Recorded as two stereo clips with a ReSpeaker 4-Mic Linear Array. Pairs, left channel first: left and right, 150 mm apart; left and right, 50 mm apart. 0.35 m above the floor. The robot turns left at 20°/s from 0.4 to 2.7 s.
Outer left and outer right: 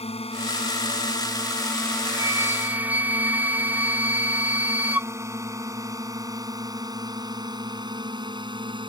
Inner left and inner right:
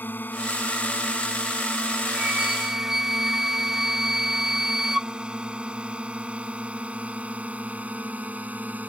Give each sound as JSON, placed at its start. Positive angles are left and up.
{"t": 0.0, "sound": "a drone", "side_deg": 40}
{"t": 2.1, "sound": "a flute", "side_deg": -20}